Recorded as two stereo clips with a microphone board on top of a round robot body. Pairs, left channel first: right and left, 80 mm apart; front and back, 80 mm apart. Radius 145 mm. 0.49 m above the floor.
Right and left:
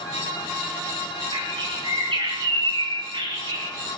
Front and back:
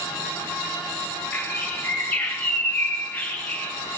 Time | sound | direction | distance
1.3 | a bird | 70° left | 4 m